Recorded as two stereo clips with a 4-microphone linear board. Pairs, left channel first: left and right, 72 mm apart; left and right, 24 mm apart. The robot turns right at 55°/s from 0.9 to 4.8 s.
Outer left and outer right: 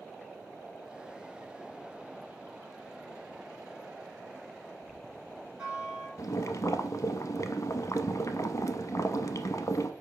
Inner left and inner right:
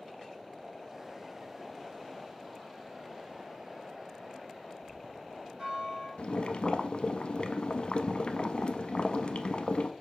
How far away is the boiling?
About 0.5 m.